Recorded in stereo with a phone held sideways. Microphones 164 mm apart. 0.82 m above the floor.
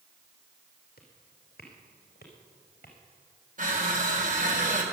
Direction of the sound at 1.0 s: 75° left (ahead or behind).